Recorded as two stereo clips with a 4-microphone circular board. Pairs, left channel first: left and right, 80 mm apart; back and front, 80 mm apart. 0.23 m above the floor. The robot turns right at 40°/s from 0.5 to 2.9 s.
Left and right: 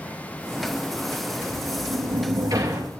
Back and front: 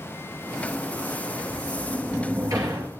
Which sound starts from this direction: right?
A sliding door, at 1.4 s.